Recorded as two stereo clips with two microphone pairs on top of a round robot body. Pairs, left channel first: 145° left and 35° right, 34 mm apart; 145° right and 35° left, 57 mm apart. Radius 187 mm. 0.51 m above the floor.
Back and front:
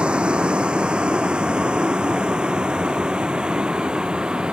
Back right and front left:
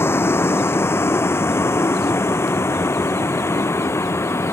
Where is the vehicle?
95° right; by 4.5 s 100° right.